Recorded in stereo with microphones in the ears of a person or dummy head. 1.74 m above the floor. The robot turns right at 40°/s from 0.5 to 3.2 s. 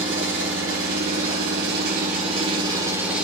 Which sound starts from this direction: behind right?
An engine running, at 0.0 s.